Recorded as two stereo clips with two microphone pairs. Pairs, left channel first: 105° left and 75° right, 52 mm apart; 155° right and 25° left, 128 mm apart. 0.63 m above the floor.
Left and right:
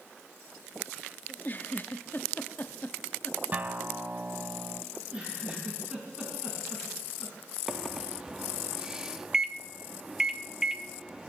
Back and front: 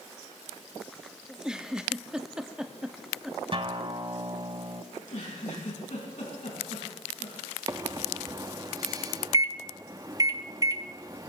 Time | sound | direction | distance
1.3 | a giggle | 105° left | 0.7 m
3.5 | a guitar | 20° right | 0.9 m
4.9 | a giggle | 145° right | 5 m
7.7 | a microwave | straight ahead | 0.5 m